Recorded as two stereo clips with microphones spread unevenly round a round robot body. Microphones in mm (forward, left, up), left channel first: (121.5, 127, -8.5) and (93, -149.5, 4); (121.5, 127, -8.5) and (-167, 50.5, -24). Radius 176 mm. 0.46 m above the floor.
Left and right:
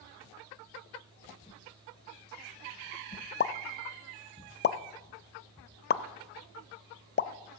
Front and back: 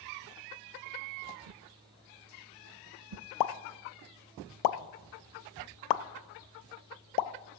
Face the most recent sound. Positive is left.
turn(degrees=25)